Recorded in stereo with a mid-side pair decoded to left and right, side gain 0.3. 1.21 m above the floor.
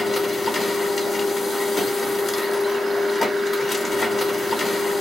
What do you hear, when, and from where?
0.0 s a machine running: 55° left, 1.2 m